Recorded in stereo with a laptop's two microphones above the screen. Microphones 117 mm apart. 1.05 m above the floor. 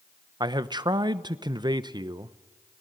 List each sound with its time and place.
0.4 s a man speaking: 40° right (ahead or behind), 0.9 m